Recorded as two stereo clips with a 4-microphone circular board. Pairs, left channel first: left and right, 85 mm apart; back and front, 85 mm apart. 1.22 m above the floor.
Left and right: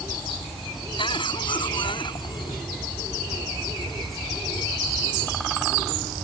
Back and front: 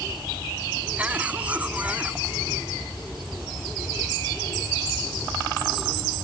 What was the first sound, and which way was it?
A cough, 75° left.